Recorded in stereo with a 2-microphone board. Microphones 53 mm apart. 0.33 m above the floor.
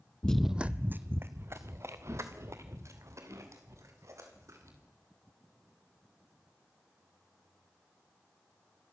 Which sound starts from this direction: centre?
Running footsteps, at 0.2 s.